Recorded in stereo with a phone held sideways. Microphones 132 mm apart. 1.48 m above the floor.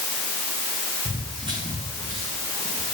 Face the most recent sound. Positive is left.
turn(degrees=-55)  # may be behind; listen again after turning